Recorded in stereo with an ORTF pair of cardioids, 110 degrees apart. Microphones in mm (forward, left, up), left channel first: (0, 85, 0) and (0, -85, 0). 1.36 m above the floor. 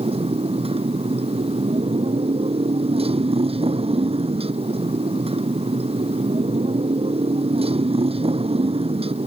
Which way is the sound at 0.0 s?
35° right.